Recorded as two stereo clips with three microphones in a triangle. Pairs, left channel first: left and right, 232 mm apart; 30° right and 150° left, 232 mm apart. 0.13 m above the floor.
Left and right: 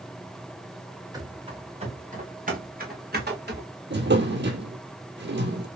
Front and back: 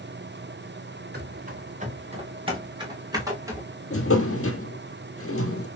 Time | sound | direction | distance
1.1 | running footsteps | 160° right | 1.7 m
3.9 | a drawer | 50° right | 1.0 m